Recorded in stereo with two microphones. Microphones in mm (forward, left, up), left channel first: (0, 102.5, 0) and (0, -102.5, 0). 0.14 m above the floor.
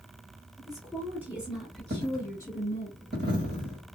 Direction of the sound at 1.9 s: 50° right (ahead or behind).